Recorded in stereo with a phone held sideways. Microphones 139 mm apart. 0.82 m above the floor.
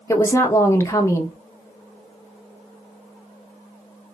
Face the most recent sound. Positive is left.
turn(degrees=20)  # may be behind; listen again after turning